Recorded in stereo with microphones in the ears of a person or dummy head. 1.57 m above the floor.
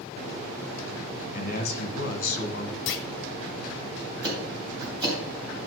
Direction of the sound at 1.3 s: 50° left (ahead or behind).